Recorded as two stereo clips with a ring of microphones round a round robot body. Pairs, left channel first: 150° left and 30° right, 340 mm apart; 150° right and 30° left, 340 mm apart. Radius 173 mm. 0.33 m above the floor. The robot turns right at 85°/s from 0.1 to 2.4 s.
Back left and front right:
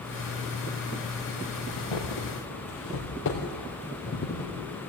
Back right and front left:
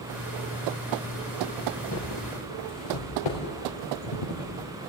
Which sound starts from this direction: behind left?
Footsteps, at 1.7 s.